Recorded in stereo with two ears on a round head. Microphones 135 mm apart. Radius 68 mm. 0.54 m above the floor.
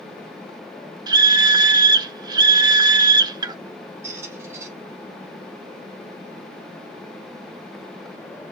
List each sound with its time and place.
1.1 s a scream: 25° right (ahead or behind), 0.7 m
4.0 s a squeak: 15° right (ahead or behind), 5 m